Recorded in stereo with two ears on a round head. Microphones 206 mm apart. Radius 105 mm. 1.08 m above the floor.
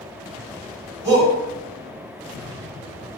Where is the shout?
15° right (ahead or behind), 1.9 m.